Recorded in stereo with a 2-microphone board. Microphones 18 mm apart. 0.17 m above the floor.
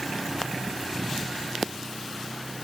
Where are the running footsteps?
No running footsteps in this recording.